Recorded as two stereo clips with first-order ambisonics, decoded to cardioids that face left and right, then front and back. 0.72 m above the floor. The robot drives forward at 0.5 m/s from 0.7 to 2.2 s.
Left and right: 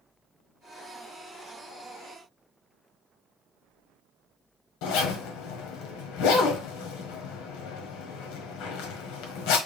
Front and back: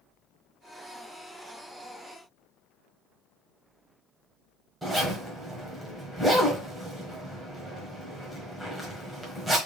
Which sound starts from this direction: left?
A zipper, at 4.8 s.